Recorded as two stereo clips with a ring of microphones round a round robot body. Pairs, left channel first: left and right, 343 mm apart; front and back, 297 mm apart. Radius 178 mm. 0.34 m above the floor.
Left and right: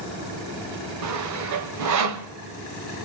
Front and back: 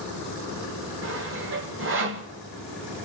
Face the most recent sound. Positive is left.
turn(degrees=-130)